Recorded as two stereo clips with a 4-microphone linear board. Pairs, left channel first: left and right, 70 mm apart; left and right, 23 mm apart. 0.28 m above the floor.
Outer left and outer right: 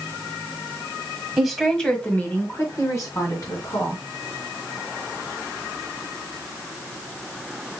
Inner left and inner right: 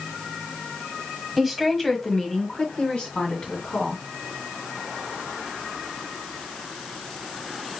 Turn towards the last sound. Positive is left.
turn(degrees=65)  # may be behind; listen again after turning